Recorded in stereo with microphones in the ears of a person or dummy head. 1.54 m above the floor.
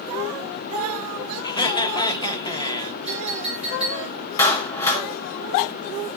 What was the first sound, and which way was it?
Laughter, 25° left (ahead or behind).